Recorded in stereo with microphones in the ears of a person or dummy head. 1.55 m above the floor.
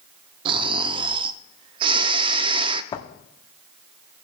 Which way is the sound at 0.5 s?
25° right (ahead or behind).